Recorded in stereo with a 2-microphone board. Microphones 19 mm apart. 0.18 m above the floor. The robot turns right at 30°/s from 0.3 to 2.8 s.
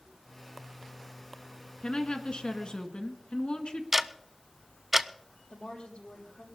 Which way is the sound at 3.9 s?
15° right (ahead or behind).